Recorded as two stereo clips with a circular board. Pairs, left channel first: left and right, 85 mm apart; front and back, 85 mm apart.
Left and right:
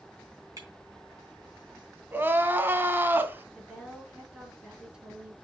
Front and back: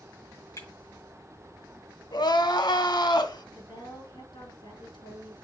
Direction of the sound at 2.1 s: 25° right.